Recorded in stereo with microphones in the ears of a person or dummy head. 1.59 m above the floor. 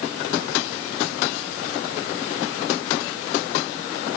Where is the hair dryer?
No hair dryer in this recording.